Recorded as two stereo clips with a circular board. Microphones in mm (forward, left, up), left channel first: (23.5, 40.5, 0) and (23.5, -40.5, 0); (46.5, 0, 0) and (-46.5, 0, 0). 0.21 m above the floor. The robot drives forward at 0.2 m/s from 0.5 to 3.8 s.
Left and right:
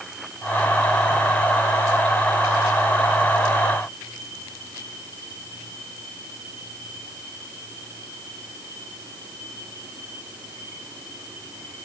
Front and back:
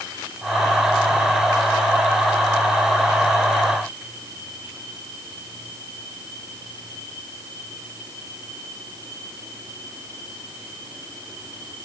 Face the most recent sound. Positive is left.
No sound to turn to.